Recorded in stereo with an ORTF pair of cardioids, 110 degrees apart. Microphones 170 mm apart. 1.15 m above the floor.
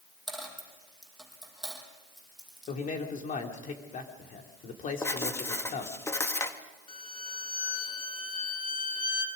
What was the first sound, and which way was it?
A dropped coin, straight ahead.